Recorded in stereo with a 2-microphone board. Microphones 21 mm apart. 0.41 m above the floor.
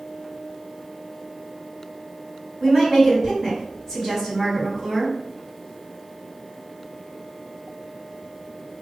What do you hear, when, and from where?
2.6 s a woman speaking: 5° right (ahead or behind), 1.8 m